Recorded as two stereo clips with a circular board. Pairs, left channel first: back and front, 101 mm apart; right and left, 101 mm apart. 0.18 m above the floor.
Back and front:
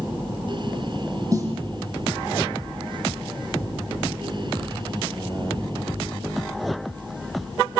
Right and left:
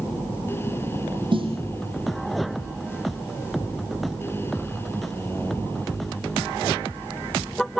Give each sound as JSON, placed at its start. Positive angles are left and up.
{"t": 1.3, "sound": "a snare drum", "azimuth_deg": 55, "distance_m": 7.5}